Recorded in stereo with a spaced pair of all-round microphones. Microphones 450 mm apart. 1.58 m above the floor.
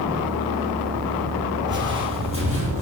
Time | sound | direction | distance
1.7 | footsteps | 25° right (ahead or behind) | 1.7 m